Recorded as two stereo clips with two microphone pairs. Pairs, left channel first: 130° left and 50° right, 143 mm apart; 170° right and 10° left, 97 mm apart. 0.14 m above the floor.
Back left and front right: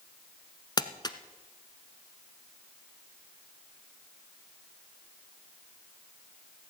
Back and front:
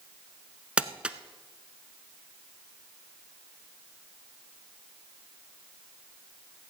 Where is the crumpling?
80° left, 0.7 m.